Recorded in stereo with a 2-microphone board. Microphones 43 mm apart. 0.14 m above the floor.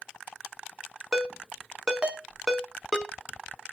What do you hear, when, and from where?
1.1 s a ringtone: 15° right (ahead or behind), 0.5 m